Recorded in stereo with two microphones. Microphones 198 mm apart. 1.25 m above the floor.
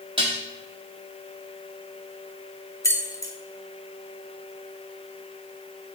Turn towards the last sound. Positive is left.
turn(degrees=15)  # may be behind; listen again after turning